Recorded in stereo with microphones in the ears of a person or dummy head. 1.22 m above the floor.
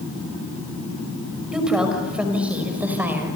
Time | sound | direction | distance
1.5 | a woman speaking | centre (ahead or behind) | 5.5 m